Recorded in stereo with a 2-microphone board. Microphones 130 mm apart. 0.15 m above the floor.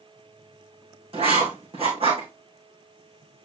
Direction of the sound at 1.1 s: 50° right (ahead or behind).